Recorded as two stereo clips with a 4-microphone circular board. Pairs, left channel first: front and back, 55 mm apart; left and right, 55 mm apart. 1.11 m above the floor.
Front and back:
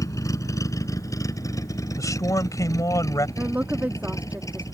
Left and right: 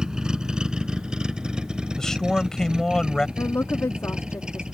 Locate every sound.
0.0 s a vehicle: 15° right
2.0 s a man speaking: 10° left
3.4 s a woman speaking: 125° left